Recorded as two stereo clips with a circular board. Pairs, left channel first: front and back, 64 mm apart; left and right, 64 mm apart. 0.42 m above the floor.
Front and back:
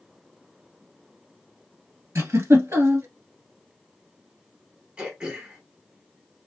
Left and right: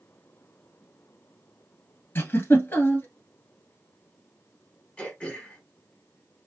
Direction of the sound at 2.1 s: 140° left.